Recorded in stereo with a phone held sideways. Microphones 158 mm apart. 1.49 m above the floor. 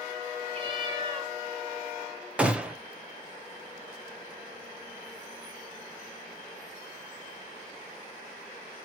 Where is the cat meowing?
35° right (ahead or behind), 2.5 m.